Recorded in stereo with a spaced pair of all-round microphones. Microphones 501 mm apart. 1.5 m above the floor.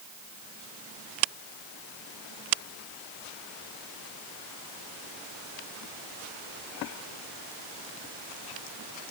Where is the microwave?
I don't hear a microwave.